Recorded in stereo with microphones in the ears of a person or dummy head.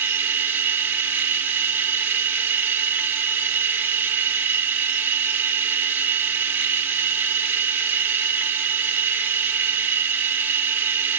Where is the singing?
No singing in this recording.